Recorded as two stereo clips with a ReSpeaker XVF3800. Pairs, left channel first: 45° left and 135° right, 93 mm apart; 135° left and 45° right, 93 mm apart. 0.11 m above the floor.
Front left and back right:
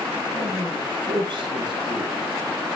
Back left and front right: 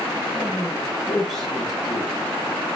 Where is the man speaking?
140° right, 3 m.